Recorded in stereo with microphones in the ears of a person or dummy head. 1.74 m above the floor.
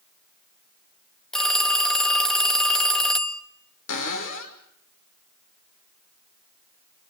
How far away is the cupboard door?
About 5 m.